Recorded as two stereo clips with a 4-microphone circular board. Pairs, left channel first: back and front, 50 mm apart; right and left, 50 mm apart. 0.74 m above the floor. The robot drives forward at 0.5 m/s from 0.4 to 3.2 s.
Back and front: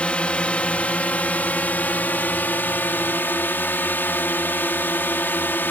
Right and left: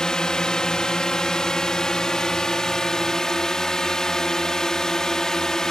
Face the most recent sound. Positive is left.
turn(degrees=-165)